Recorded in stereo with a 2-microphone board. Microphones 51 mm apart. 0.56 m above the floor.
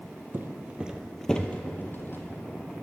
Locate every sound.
0.3 s footsteps: 45° right (ahead or behind), 0.8 m; by 2.2 s 50° left (ahead or behind), 1.1 m